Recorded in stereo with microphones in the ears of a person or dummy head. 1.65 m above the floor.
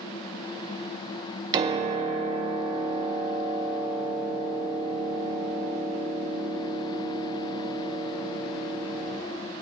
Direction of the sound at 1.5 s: 25° right (ahead or behind).